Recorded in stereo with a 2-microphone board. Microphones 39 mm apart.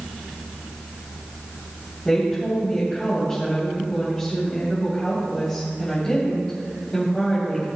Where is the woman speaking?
20° left (ahead or behind), 3 m.